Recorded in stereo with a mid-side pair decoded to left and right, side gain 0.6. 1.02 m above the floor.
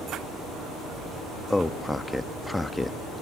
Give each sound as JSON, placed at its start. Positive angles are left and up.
{"t": 1.5, "sound": "a man speaking", "azimuth_deg": 5, "distance_m": 1.1}